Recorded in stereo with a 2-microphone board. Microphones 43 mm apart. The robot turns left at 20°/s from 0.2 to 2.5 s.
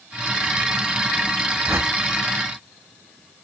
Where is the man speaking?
No man speaking in this recording.